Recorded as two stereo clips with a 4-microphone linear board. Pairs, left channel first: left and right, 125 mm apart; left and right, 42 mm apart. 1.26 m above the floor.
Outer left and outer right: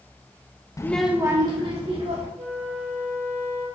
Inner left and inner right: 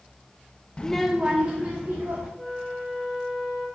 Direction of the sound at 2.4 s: 50° right (ahead or behind).